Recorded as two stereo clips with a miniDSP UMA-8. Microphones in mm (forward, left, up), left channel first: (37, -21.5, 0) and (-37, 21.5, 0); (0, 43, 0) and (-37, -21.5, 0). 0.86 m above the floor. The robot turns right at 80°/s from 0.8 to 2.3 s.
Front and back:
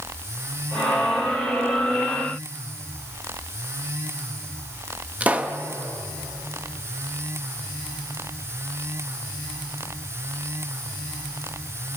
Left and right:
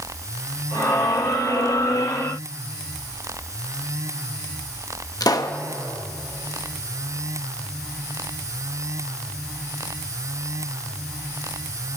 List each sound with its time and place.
5.2 s a pop: 80° left, 0.8 m